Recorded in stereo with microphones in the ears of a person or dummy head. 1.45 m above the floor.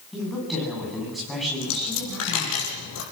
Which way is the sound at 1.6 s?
75° left (ahead or behind).